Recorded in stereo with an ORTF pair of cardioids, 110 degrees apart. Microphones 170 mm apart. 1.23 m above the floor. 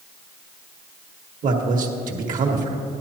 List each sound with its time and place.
1.4 s a man speaking: 50° right, 1.7 m